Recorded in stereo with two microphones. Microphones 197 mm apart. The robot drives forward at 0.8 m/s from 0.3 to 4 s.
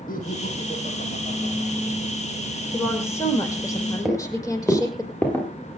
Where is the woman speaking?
15° left (ahead or behind), 6.5 m.